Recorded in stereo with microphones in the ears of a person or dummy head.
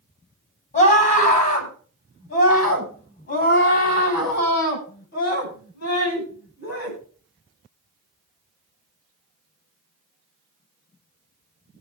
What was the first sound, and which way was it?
A scream, 40° left (ahead or behind).